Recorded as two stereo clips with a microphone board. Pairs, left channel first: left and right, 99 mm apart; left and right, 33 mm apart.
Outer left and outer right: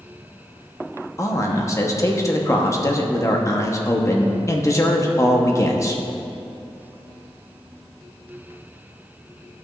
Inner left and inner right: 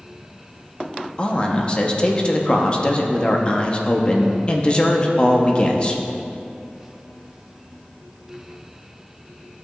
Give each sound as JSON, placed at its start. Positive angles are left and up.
{"t": 1.2, "sound": "a man speaking", "side_deg": 30, "distance_m": 0.9}